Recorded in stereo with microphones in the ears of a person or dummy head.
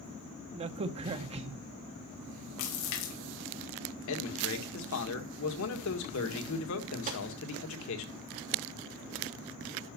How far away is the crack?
About 0.9 m.